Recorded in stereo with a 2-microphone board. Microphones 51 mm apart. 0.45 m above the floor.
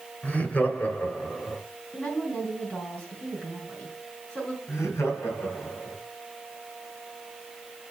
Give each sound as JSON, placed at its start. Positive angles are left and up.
{"t": 0.2, "sound": "laughter", "side_deg": 30, "distance_m": 2.5}
{"t": 1.9, "sound": "a woman speaking", "side_deg": 25, "distance_m": 3.5}
{"t": 4.7, "sound": "laughter", "side_deg": 70, "distance_m": 2.5}